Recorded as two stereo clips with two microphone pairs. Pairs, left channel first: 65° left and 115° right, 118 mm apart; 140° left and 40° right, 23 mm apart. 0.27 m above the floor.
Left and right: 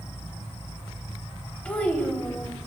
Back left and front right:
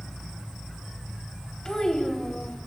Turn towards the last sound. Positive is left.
turn(degrees=130)